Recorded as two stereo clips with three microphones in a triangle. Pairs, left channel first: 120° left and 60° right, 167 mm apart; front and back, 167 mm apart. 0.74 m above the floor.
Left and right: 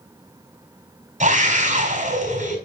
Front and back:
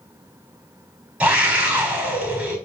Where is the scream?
95° right, 4 m.